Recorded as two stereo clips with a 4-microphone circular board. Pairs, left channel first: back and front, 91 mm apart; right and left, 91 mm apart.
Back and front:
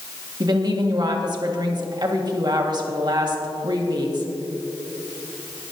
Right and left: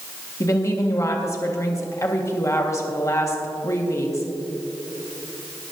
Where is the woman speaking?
35° right, 1.7 m.